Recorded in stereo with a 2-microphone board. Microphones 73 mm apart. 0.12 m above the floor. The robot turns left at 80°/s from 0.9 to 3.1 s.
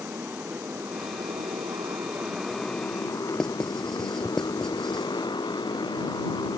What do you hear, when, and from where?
0.0 s a motorcycle: 30° right (ahead or behind); by 6.6 s 75° left (ahead or behind)
3.4 s writing: 5° left (ahead or behind)